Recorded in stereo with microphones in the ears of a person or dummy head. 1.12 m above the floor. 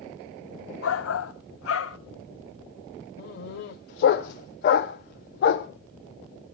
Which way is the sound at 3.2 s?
45° left (ahead or behind).